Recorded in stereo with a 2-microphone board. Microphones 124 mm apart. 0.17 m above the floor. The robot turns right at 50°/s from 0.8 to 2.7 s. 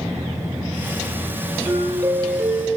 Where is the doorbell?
165° right, 7.5 m; by 2.8 s 110° right, 7.5 m.